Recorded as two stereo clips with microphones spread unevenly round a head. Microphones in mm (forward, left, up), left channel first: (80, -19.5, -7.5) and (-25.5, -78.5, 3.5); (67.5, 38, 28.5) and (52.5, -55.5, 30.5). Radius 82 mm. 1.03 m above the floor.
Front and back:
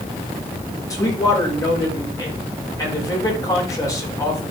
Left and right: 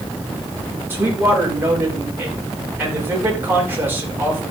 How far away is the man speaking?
About 4.5 m.